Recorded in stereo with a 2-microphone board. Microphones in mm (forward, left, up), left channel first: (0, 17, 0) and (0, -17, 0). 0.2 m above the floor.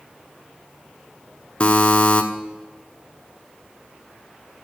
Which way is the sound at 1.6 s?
25° left (ahead or behind).